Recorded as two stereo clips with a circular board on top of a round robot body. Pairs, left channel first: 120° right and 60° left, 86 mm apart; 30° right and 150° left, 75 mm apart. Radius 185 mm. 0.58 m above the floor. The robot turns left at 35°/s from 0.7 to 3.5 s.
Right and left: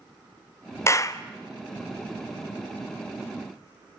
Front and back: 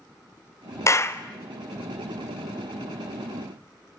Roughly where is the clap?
Right.